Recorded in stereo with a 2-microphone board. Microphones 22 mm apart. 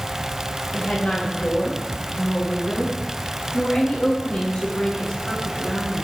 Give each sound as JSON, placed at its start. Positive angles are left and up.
{"t": 0.7, "sound": "a woman speaking", "side_deg": 65, "distance_m": 8.5}